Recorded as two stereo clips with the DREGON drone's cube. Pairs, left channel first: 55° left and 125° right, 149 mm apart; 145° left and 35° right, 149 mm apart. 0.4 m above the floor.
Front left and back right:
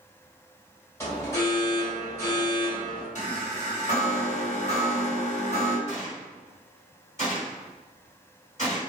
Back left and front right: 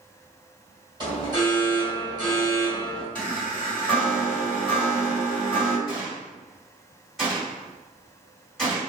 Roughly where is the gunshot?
Ahead left.